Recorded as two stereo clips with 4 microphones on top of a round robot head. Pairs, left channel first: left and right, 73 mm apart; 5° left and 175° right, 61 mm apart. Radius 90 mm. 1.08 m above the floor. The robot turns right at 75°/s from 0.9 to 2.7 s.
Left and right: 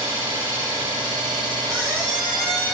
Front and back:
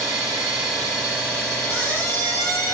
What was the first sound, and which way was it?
An engine running, 125° right.